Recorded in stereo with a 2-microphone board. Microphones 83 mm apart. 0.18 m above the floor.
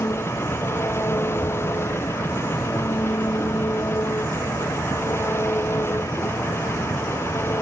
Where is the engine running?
30° left (ahead or behind).